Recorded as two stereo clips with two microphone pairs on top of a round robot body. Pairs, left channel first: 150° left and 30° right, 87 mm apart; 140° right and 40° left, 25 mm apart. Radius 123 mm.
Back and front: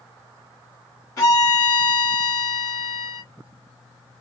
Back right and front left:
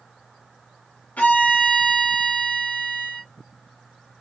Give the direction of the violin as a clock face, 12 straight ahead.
5 o'clock.